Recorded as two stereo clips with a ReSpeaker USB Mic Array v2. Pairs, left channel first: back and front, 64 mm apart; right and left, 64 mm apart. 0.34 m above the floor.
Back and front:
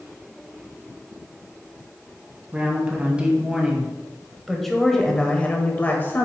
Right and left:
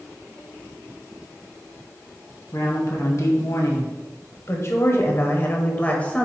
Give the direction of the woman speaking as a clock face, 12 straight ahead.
2 o'clock.